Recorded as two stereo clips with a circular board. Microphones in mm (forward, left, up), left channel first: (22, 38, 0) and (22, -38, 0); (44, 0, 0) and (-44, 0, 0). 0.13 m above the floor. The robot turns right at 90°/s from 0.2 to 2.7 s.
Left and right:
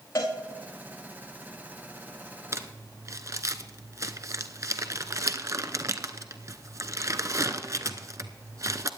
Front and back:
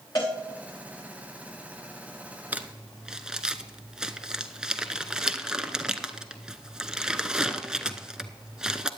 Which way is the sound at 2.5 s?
115° right.